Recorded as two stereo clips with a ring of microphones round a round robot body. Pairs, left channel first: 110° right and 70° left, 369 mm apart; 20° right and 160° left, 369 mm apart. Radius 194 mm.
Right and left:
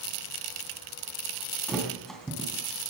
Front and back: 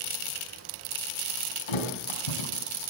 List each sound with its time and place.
1.7 s a thud: 25° right, 3.5 m